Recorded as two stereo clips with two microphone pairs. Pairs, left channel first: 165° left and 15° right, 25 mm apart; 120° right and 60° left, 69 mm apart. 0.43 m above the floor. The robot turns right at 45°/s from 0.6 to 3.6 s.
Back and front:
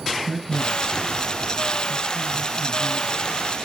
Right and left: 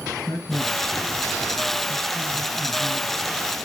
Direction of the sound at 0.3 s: 75° right.